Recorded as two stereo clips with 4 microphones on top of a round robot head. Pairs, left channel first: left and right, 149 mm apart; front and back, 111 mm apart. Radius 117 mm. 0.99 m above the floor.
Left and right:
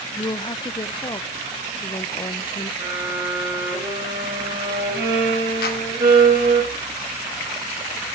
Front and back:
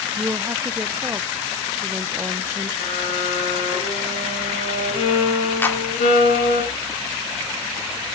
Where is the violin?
20° right, 4 m.